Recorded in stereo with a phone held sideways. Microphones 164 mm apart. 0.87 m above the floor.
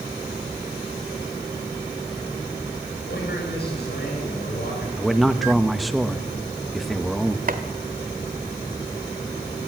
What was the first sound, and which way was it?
A man speaking, 80° left.